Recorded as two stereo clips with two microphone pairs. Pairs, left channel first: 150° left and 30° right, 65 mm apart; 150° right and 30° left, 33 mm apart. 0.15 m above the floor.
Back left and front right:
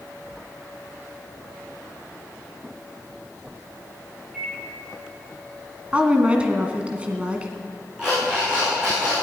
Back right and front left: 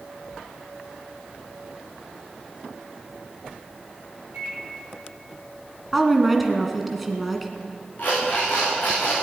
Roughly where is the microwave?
Ahead left.